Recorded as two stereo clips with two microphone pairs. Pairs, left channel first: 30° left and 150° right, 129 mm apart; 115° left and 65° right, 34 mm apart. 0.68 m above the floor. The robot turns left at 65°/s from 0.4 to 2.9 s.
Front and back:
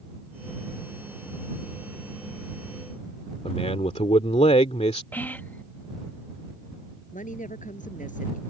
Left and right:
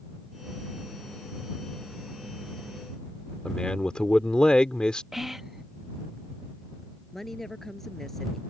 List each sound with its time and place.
3.5 s a man speaking: 55° left
5.1 s whispering: 5° right
7.1 s a woman speaking: 35° left